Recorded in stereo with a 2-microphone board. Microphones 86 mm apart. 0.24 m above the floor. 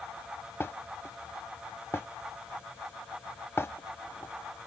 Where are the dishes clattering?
30° left (ahead or behind).